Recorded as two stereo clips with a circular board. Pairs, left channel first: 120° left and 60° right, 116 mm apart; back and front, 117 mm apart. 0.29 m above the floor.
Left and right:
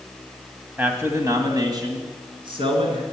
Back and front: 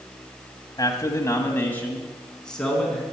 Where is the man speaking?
130° right, 1.4 m; by 3.0 s 90° right, 2.5 m.